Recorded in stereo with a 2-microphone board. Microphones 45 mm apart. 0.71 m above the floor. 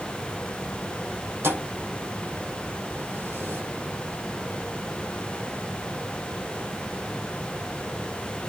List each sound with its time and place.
1.4 s a thud: 60° right (ahead or behind), 6 m